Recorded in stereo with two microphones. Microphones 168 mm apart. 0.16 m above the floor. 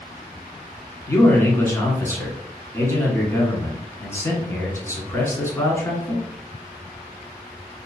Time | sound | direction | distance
1.1 | a man speaking | 15° left (ahead or behind) | 1.3 m